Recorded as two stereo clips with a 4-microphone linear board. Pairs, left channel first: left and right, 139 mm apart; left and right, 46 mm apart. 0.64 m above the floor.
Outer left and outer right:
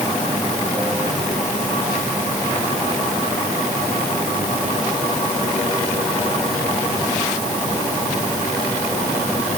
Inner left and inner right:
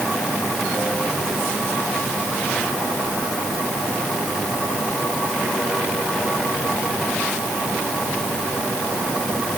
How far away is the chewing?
No chewing in this recording.